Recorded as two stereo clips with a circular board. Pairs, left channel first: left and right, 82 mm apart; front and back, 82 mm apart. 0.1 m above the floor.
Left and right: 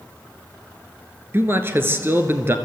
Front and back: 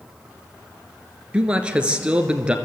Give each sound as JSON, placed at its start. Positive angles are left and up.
{"t": 1.3, "sound": "a man speaking", "azimuth_deg": -115, "distance_m": 1.4}